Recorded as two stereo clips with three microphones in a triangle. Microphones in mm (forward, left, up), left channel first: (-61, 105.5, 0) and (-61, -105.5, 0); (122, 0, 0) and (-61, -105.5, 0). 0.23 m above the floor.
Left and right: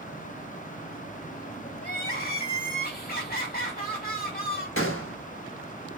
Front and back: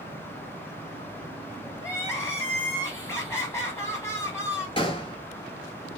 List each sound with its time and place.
1.8 s crying: 100° left, 0.8 m
4.8 s a gunshot: 95° left, 0.7 m